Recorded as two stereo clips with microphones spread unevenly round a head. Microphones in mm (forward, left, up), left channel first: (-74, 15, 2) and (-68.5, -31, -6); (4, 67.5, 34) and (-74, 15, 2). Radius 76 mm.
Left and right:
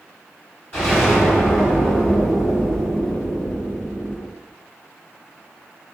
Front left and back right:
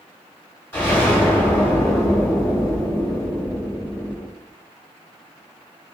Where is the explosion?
75° left, 1.8 m.